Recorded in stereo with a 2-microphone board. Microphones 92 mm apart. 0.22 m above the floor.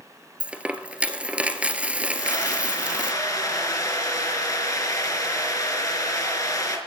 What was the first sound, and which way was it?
A dropped coin, 15° right (ahead or behind).